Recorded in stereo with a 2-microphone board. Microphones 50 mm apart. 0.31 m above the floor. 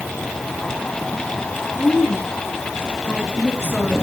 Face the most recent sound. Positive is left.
turn(degrees=20)  # may be behind; listen again after turning